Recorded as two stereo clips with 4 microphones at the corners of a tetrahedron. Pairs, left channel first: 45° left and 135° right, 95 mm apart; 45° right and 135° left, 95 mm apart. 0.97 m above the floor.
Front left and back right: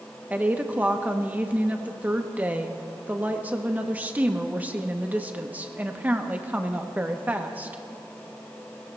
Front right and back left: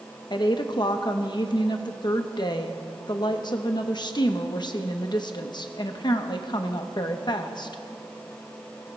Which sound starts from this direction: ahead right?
A woman speaking, at 0.3 s.